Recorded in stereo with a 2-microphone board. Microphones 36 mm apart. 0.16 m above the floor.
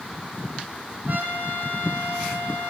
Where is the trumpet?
60° right (ahead or behind), 5.5 m.